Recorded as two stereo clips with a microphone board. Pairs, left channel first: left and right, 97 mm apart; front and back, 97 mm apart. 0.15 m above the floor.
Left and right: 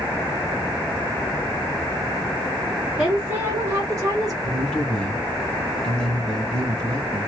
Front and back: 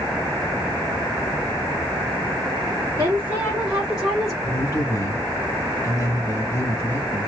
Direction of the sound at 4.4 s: 15° left.